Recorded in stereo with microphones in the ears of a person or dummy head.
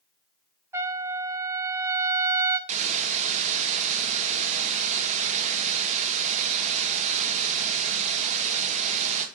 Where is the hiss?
35° right (ahead or behind), 1.9 m.